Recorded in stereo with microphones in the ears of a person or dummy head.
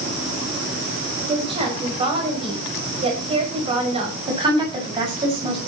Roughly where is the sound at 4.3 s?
Right.